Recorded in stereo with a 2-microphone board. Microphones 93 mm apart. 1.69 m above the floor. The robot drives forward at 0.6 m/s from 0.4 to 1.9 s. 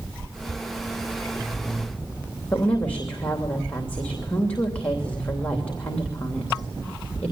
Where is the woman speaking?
15° left (ahead or behind), 3 m.